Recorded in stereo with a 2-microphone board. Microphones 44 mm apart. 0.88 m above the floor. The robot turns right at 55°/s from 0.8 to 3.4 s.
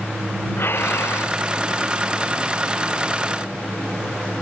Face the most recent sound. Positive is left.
turn(degrees=-160)